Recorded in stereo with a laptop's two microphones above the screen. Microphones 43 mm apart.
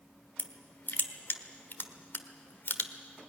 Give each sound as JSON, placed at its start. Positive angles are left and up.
{"t": 0.4, "sound": "crushing", "side_deg": 55, "distance_m": 1.3}